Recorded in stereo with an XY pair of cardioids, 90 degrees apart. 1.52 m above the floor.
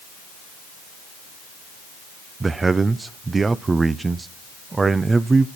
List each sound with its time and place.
2.4 s a man speaking: 35° right, 0.6 m